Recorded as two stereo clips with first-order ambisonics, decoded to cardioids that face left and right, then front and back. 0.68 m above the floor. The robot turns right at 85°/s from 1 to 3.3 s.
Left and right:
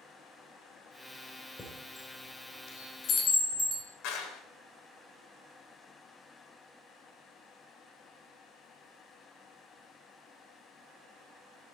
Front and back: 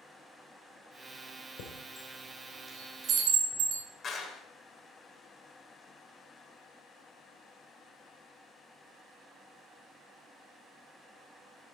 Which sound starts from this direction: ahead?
A chime, at 1.6 s.